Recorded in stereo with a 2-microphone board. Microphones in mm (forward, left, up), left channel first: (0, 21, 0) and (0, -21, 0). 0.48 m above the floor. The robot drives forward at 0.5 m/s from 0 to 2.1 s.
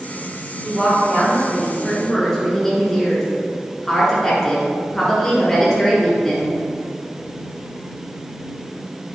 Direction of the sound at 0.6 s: 5° left (ahead or behind).